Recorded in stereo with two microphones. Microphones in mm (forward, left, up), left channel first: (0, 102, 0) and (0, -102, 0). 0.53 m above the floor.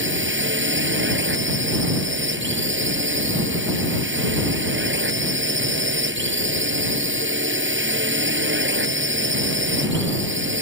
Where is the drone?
70° right (ahead or behind).